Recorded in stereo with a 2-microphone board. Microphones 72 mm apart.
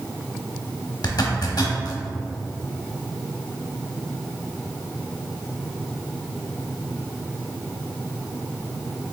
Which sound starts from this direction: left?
A zipper, at 1.0 s.